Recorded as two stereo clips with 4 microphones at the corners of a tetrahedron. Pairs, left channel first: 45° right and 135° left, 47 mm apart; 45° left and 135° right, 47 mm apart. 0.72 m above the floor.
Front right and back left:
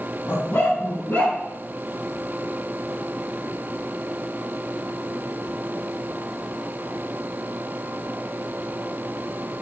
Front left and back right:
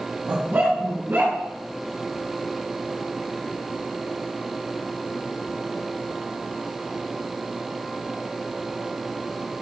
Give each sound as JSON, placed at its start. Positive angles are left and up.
{"t": 0.3, "sound": "a dog barking", "azimuth_deg": -85, "distance_m": 2.5}